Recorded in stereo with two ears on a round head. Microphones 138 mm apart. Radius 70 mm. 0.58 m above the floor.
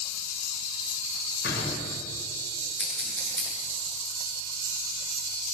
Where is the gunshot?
65° left (ahead or behind), 6.5 m.